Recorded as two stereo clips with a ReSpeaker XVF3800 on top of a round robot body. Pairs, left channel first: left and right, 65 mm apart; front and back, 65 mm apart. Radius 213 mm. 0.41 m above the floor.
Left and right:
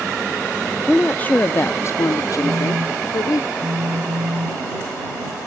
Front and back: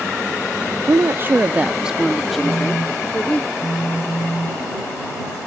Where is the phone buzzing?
70° right.